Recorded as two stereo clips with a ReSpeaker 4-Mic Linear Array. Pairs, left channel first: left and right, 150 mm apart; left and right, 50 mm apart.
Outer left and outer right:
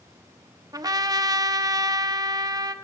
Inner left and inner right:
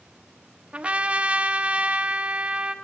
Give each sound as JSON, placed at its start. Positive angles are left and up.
{"t": 0.7, "sound": "a trumpet", "side_deg": -25, "distance_m": 0.7}